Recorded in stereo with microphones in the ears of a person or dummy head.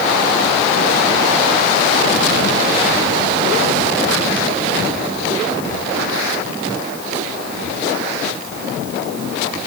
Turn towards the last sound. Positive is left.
No sound to turn to.